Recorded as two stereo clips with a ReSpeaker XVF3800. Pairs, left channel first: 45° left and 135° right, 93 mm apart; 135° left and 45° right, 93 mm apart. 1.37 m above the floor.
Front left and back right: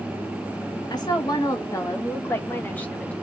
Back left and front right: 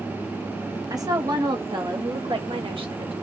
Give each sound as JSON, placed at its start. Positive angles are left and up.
{"t": 0.9, "sound": "a woman speaking", "azimuth_deg": 5, "distance_m": 2.0}